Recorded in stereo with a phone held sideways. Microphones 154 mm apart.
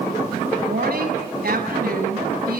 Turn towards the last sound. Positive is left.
turn(degrees=-85)